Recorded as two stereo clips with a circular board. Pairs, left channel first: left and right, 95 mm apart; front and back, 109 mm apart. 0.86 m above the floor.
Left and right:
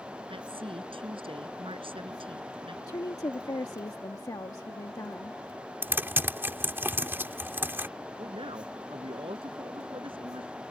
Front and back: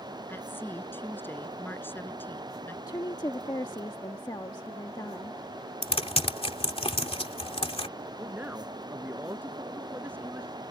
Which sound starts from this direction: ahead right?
Typing on a keyboard, at 5.8 s.